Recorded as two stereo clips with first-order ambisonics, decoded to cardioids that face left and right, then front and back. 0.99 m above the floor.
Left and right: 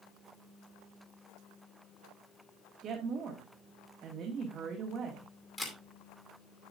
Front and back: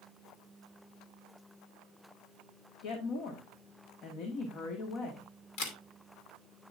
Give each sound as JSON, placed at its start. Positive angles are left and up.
{"t": 2.8, "sound": "a woman speaking", "azimuth_deg": -30, "distance_m": 1.7}
{"t": 5.6, "sound": "a camera shutter", "azimuth_deg": 15, "distance_m": 2.5}